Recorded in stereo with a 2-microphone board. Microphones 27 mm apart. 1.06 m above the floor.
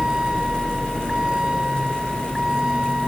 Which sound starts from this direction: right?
A vehicle, at 0.0 s.